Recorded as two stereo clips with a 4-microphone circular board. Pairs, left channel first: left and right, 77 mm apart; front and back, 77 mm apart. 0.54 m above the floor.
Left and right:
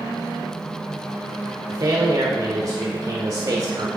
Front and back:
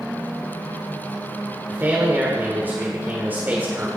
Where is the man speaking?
115° right, 1.6 m.